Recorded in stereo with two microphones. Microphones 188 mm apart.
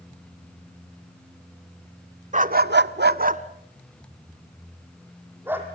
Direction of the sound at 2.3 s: 40° right (ahead or behind).